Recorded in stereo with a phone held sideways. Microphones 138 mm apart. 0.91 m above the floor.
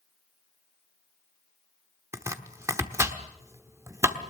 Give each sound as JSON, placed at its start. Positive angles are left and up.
{"t": 2.1, "sound": "chopping", "side_deg": -20, "distance_m": 1.2}